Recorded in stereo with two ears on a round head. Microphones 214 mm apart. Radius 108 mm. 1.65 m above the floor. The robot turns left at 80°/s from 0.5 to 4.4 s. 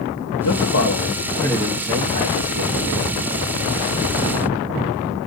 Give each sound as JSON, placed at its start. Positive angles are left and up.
{"t": 0.4, "sound": "a man speaking", "azimuth_deg": 80, "distance_m": 1.0}